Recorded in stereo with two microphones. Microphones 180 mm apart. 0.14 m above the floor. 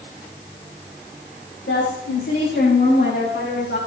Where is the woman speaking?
70° left (ahead or behind), 7.5 m.